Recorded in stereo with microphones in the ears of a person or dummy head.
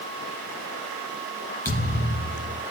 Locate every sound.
1.6 s a thud: 10° left (ahead or behind), 3 m